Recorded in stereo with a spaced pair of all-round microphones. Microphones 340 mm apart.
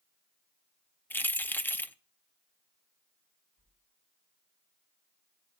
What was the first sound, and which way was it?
Keys jangling, 5° left (ahead or behind).